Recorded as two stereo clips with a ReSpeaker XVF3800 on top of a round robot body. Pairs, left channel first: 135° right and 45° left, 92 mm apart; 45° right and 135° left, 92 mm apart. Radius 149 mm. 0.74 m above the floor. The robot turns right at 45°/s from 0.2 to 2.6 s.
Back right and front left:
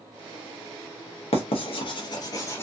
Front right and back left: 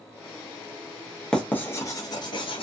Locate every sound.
1.3 s writing: 130° right, 0.7 m; by 2.6 s 70° right, 0.7 m